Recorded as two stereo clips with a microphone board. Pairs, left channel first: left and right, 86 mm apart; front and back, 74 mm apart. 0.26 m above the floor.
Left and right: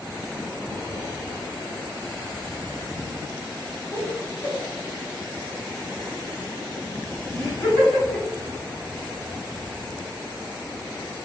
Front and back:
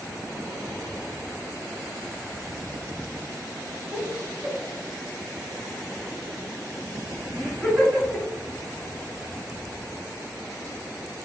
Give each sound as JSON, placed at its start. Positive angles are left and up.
{"t": 3.9, "sound": "laughter", "azimuth_deg": 130, "distance_m": 1.8}